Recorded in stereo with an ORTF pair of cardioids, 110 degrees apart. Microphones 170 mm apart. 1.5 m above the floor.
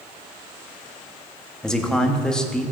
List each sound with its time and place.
1.6 s a man speaking: 5° left, 1.3 m